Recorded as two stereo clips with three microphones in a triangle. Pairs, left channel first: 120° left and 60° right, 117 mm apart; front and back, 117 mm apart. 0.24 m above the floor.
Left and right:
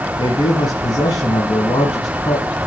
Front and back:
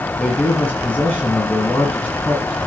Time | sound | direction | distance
0.2 | a man speaking | 75° left | 1.9 m